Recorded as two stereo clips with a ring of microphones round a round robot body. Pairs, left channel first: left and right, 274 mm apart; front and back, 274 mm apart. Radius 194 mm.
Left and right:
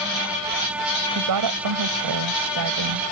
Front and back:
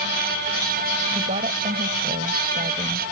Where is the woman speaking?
105° right.